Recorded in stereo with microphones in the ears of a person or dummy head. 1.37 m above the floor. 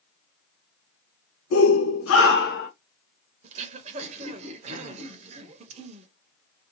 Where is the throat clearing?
35° right (ahead or behind), 0.8 m.